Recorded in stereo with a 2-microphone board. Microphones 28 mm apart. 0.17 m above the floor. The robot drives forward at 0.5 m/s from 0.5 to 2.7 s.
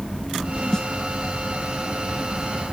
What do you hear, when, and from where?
0.7 s a snare drum: 25° left (ahead or behind)